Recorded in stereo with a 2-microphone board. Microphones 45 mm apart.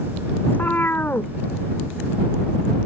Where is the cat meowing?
40° left (ahead or behind); by 2.9 s 65° left (ahead or behind).